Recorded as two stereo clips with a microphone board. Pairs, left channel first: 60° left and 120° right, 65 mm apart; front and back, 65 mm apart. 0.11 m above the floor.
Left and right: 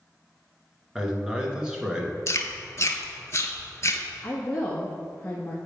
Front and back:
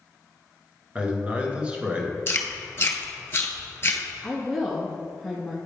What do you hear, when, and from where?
0.9 s a man speaking: 170° right, 1.2 m
2.3 s chewing: 40° left, 0.9 m
4.2 s a woman speaking: 95° left, 1.2 m